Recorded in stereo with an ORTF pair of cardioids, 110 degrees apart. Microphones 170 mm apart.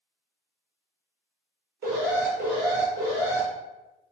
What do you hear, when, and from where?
1.8 s an alarm: 60° right, 1.2 m